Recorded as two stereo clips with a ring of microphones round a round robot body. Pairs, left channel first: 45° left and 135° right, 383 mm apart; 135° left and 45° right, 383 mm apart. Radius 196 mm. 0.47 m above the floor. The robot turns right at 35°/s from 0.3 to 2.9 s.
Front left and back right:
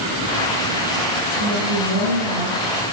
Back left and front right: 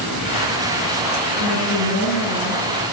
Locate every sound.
1.3 s a woman speaking: 170° left, 9 m; by 2.6 s 140° right, 9 m